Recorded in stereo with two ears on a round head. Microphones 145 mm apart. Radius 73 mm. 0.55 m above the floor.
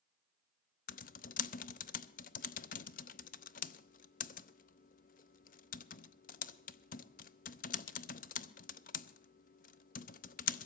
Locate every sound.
0.9 s typing on a keyboard: 55° left (ahead or behind), 0.7 m